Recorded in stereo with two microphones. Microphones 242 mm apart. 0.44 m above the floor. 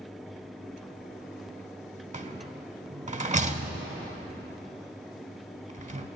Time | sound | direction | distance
2.1 | a rattle | 30° right (ahead or behind) | 0.5 m